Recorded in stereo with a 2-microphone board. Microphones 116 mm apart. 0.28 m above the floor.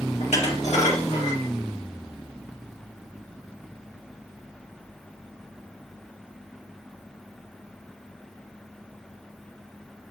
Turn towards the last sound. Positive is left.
turn(degrees=75)  # may be behind; listen again after turning